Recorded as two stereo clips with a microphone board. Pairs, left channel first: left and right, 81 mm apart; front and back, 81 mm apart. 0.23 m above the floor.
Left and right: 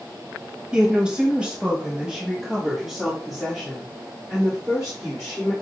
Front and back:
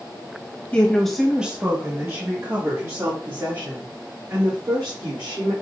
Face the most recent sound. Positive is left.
turn(degrees=180)